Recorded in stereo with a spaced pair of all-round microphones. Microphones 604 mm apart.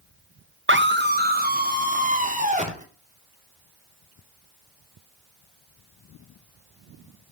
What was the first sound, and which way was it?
A scream, 20° right (ahead or behind).